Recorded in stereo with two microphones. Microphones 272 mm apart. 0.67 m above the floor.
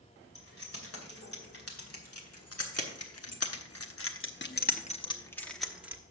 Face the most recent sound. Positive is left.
turn(degrees=-10)  # may be behind; listen again after turning